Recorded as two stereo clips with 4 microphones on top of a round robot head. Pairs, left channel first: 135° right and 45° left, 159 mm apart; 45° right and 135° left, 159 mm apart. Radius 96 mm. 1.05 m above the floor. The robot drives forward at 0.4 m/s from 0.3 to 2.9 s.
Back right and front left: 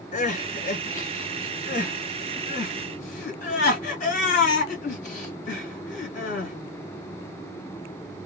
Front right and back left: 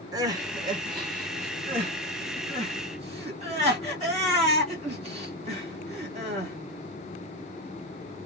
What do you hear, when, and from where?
0.1 s crying: 160° right, 1.0 m; by 6.5 s 170° right, 1.9 m